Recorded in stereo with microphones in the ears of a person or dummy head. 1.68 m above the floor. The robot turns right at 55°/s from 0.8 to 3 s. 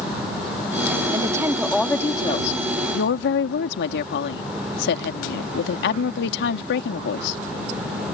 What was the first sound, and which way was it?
A woman speaking, 35° right.